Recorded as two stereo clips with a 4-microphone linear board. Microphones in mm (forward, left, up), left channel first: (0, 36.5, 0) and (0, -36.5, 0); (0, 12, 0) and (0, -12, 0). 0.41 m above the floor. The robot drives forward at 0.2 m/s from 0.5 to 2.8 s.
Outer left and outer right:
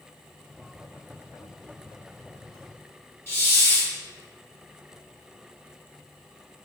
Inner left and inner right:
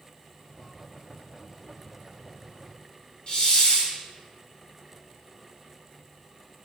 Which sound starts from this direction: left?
A hiss, at 3.3 s.